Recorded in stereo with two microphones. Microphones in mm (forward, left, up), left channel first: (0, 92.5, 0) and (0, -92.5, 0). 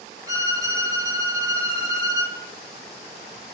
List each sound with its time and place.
0.3 s a violin: 20° right (ahead or behind), 1.5 m